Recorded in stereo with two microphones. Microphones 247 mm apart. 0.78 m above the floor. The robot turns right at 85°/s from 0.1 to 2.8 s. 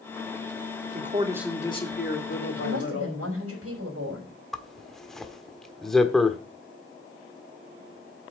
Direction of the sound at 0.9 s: 45° right.